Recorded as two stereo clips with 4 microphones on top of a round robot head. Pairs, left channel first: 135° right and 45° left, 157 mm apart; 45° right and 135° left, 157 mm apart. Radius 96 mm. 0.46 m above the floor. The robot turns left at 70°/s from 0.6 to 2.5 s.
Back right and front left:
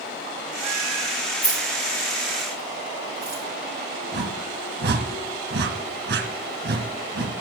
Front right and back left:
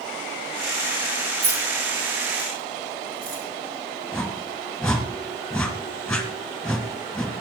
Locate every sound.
1.4 s keys jangling: 175° right, 6.5 m; by 3.4 s 105° left, 6.5 m
4.1 s a whoosh: 40° left, 1.8 m